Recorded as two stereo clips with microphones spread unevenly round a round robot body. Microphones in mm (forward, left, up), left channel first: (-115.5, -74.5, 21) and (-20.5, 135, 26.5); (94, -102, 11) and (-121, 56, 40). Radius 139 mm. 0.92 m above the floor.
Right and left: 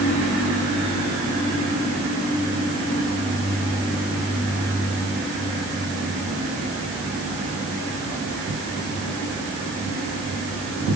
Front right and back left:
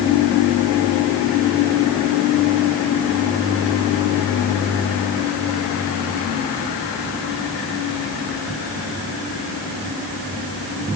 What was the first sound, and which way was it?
Only background noise.